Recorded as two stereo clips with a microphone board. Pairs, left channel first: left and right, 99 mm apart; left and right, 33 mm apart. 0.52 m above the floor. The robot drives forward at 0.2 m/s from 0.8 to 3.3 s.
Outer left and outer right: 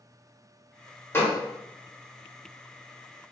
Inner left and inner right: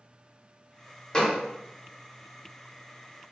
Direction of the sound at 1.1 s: 25° left (ahead or behind).